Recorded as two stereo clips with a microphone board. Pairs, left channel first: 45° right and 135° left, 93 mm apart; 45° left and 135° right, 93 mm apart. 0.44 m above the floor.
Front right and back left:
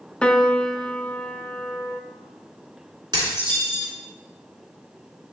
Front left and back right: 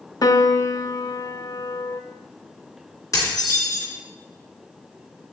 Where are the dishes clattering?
95° left, 3.5 m.